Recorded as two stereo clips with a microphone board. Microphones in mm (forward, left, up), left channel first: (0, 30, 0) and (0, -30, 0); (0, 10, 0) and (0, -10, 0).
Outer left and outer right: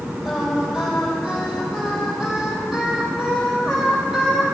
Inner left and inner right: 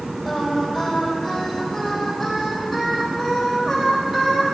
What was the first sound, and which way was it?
Singing, 5° right (ahead or behind).